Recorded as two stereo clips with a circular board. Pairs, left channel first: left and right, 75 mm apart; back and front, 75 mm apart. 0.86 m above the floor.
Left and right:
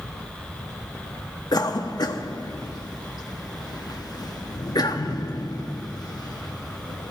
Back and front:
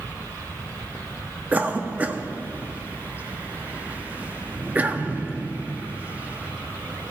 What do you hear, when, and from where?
1.5 s a cough: 65° left, 1.0 m